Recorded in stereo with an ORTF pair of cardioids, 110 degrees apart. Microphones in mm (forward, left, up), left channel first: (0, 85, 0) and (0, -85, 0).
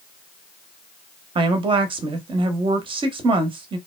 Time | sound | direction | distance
1.4 | a woman speaking | 35° right | 0.8 m